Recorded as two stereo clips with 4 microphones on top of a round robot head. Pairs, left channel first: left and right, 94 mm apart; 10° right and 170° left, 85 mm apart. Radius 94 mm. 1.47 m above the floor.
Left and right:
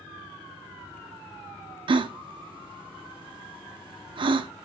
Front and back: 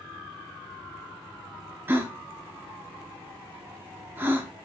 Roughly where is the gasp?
Behind right.